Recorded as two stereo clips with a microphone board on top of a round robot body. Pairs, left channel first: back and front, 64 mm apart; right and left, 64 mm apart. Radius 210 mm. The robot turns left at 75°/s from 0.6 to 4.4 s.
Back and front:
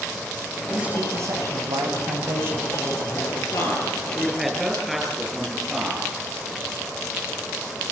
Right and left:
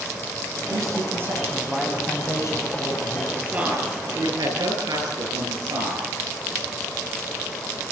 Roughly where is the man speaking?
Left.